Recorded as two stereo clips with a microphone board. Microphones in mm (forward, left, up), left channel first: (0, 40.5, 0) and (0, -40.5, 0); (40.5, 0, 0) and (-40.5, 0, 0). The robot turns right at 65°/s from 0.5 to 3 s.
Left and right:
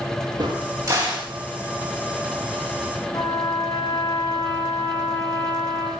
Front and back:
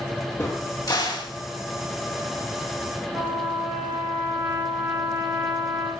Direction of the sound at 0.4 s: 60° right.